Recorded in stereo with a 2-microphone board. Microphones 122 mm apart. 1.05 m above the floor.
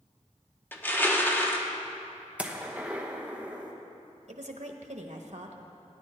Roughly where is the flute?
No flute in this recording.